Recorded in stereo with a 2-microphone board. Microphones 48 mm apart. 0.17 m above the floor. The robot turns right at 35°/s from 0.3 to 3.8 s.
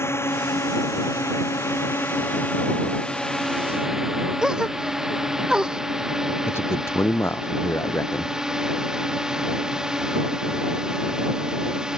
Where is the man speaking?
60° left (ahead or behind).